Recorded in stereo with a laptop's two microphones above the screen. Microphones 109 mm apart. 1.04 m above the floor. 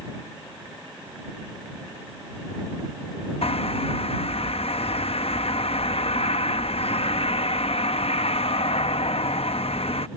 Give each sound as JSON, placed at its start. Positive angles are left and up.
{"t": 3.4, "sound": "a bird", "side_deg": 60}